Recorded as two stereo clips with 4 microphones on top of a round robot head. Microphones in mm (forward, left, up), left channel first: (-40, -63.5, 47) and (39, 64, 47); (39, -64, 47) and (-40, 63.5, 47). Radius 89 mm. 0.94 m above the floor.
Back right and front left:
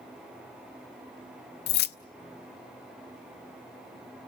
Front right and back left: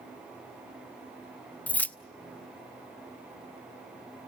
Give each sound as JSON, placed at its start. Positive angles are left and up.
{"t": 1.7, "sound": "keys jangling", "azimuth_deg": -140, "distance_m": 0.5}